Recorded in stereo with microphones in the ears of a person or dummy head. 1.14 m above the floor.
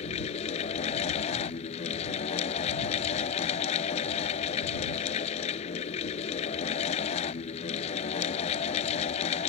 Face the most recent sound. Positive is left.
turn(degrees=35)  # may be behind; listen again after turning